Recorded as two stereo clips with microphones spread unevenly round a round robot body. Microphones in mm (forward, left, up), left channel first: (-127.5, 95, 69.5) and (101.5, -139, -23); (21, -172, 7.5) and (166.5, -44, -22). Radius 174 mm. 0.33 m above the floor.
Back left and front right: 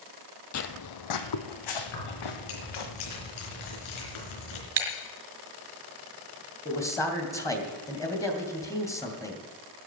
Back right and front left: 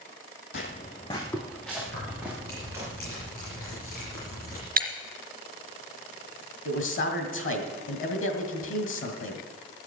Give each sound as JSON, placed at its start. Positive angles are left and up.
{"t": 0.5, "sound": "footsteps", "azimuth_deg": 175, "distance_m": 0.8}
{"t": 1.9, "sound": "keys jangling", "azimuth_deg": 165, "distance_m": 4.0}
{"t": 4.8, "sound": "breaking glass", "azimuth_deg": 0, "distance_m": 3.0}
{"t": 6.7, "sound": "a man speaking", "azimuth_deg": -135, "distance_m": 2.5}